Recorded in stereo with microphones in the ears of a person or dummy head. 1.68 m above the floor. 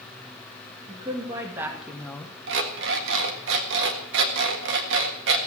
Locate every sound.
0.9 s a woman speaking: 25° right (ahead or behind), 3 m; by 2.3 s 20° left (ahead or behind), 1.4 m
2.5 s an alarm clock: 65° right (ahead or behind), 1.7 m